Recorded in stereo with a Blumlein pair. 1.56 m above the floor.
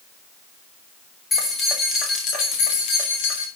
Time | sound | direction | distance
1.3 | keys jangling | 15° left | 2.5 m